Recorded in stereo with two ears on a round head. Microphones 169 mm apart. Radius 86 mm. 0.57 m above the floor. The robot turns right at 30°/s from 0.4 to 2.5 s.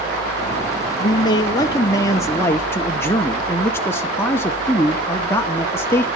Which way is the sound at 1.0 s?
25° left (ahead or behind).